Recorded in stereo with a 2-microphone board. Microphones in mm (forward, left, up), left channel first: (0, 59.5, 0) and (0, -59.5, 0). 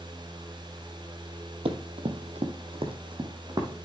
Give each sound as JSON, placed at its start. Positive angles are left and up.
{"t": 1.6, "sound": "running footsteps", "side_deg": -55, "distance_m": 1.1}